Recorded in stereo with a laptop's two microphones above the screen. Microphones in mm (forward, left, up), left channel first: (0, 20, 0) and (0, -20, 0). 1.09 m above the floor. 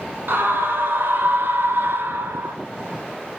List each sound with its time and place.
0.3 s a scream: 65° right (ahead or behind), 6 m; by 2.6 s 80° right, 4 m